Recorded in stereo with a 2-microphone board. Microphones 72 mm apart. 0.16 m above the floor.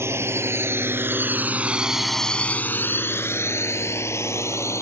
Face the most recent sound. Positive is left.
turn(degrees=40)  # may be behind; listen again after turning